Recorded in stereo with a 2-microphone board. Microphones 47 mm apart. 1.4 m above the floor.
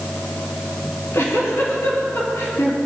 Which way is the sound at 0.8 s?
70° left (ahead or behind).